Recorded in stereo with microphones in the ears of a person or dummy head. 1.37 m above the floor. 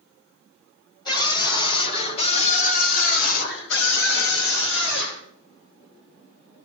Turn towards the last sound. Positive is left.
turn(degrees=70)  # may be behind; listen again after turning